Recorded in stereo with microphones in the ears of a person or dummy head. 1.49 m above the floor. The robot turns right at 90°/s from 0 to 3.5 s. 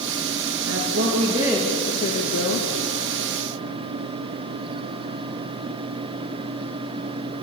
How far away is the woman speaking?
About 2 m.